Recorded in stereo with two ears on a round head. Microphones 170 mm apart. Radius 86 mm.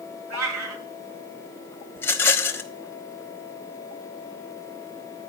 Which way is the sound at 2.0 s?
10° left (ahead or behind).